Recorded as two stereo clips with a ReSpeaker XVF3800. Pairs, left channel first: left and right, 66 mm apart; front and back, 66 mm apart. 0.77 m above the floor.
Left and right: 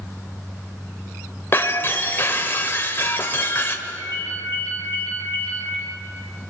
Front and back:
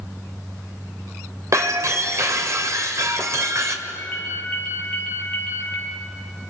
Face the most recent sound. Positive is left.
turn(degrees=-65)